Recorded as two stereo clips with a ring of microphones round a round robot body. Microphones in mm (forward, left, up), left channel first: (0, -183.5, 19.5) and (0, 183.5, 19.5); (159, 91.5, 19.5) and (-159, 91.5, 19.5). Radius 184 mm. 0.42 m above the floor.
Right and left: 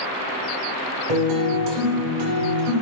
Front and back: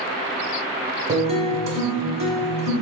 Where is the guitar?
110° left, 1.5 m.